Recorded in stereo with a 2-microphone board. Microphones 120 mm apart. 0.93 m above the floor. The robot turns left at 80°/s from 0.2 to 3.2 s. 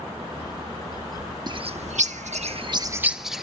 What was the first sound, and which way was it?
A bird, 35° right (ahead or behind).